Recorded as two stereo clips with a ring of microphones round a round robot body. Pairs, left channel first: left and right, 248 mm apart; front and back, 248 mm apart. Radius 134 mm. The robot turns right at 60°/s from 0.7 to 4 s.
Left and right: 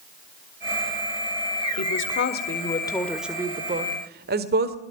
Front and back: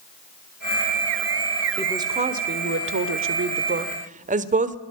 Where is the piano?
I don't hear a piano.